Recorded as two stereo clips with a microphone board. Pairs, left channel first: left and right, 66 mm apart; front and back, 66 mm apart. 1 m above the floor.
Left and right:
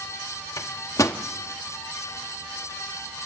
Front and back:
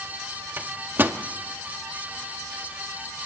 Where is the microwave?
125° left, 1.0 m.